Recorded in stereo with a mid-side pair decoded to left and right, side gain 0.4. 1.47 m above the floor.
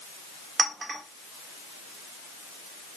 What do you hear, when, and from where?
0.6 s a clink: 35° right, 1.5 m